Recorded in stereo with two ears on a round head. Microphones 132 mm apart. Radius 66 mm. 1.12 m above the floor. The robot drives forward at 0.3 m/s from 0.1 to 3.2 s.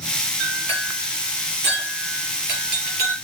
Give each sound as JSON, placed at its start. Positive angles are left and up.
{"t": 0.4, "sound": "a clink", "side_deg": -85, "distance_m": 3.0}